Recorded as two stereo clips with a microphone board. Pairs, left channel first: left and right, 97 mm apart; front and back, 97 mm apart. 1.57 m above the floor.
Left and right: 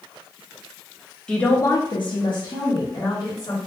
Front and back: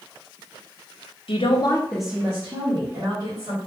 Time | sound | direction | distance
1.3 | a woman speaking | 10° left | 1.1 m